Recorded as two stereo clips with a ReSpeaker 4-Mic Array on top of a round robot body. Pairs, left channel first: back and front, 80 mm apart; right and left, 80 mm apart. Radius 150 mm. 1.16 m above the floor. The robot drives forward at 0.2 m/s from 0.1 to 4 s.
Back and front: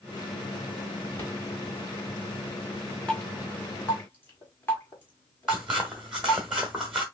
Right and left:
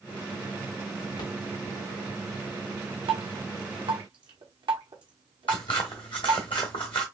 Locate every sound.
1.2 s a rattle: 115° right, 2.5 m
3.1 s dripping: 100° left, 0.9 m; by 6.4 s 115° left, 0.9 m
5.5 s scissors: 80° right, 0.9 m